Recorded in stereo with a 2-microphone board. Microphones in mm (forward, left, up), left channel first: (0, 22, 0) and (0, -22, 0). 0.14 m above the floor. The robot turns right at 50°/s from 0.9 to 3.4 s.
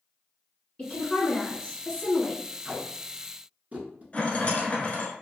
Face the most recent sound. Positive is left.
turn(degrees=35)  # may be behind; listen again after turning